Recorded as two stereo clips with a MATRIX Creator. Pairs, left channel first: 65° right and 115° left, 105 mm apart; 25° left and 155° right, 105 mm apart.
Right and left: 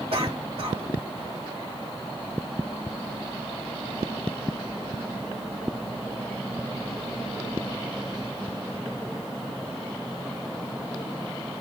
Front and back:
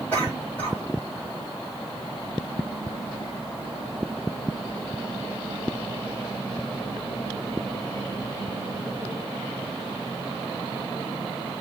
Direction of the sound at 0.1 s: 95° left.